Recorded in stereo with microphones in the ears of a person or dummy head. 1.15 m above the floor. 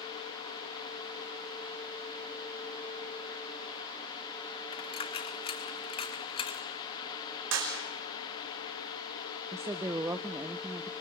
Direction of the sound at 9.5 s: 10° right (ahead or behind).